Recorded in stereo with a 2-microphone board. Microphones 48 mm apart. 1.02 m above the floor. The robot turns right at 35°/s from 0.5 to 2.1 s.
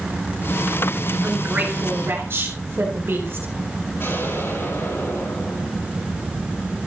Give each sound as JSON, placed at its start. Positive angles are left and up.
{"t": 1.2, "sound": "a woman speaking", "azimuth_deg": -160, "distance_m": 4.0}
{"t": 4.0, "sound": "an explosion", "side_deg": 60, "distance_m": 9.5}